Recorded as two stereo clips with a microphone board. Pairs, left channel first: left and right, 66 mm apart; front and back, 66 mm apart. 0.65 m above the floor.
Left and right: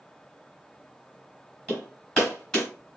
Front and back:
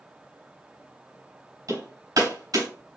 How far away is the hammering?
About 3.5 m.